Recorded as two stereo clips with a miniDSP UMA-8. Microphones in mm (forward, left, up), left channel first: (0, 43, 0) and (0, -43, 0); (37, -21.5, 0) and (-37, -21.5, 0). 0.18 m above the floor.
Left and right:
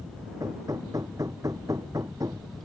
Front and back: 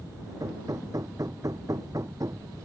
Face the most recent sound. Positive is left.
turn(degrees=-140)